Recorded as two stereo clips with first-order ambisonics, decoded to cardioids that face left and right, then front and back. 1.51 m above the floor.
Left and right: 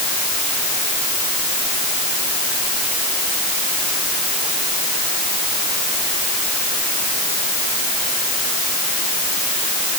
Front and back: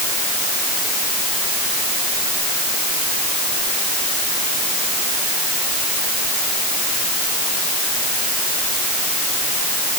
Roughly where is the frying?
No frying in this recording.